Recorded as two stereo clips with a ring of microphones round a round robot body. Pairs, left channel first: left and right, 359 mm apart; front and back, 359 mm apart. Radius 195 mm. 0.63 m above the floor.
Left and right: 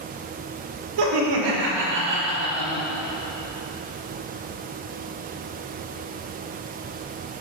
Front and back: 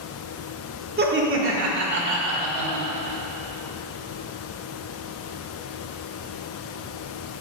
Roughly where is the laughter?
Behind right.